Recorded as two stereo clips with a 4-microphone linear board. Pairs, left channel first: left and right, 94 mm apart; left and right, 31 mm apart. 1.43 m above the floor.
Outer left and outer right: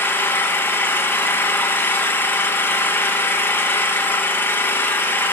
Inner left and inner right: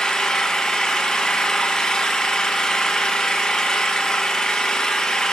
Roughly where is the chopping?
No chopping in this recording.